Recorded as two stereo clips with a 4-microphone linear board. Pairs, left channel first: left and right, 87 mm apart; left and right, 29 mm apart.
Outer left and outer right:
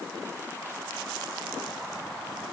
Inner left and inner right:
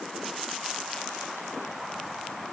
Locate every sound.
Only background noise.